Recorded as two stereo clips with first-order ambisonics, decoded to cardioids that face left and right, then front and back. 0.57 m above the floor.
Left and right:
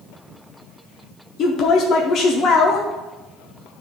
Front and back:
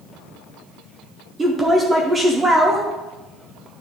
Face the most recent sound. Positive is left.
turn(degrees=110)